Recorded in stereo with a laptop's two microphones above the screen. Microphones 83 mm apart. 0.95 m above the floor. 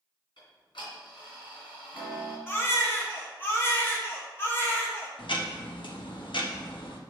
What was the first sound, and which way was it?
Ticking, 75° left (ahead or behind).